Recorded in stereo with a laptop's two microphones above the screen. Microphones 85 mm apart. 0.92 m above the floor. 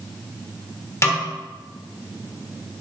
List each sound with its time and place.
1.0 s a snare drum: 35° left (ahead or behind), 1.5 m